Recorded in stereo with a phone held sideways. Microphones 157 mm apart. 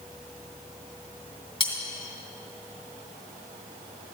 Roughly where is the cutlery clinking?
Left.